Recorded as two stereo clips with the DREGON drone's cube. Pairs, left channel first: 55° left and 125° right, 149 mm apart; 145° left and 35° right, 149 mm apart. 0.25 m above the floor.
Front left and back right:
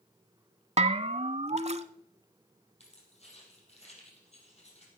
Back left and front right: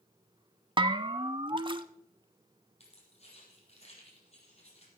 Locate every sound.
0.8 s a bell: 85° right, 0.6 m
2.8 s keys jangling: 100° left, 4 m